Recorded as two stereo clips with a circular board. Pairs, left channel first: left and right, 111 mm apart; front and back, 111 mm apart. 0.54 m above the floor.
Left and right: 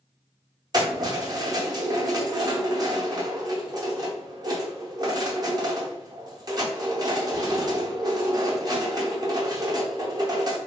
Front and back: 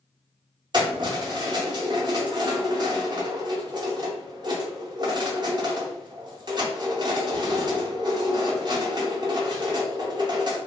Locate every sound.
0.7 s keys jangling: 135° right, 0.6 m